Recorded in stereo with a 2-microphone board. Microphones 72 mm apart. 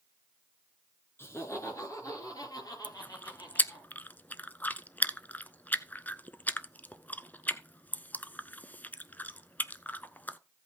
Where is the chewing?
25° left (ahead or behind), 0.5 m.